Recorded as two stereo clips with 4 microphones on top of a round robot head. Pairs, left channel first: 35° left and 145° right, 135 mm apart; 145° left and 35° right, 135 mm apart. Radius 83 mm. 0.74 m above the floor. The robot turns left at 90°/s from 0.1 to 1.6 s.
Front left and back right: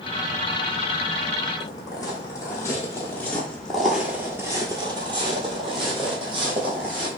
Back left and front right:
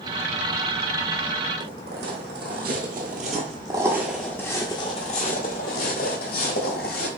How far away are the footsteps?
About 1.6 m.